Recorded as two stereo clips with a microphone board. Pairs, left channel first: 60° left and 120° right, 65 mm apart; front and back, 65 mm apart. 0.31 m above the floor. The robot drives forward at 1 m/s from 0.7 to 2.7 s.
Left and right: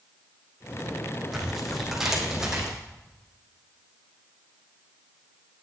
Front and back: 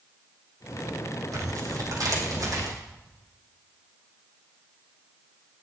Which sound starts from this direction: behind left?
Tearing paper, at 1.3 s.